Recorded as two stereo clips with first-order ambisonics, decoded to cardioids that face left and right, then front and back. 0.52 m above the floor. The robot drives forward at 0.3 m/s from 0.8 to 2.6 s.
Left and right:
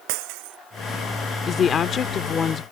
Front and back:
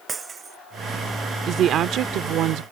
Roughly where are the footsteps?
I don't hear footsteps.